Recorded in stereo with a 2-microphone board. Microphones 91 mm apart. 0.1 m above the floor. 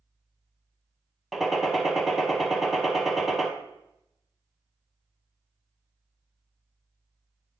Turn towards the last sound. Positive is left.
turn(degrees=0)  # may be behind; listen again after turning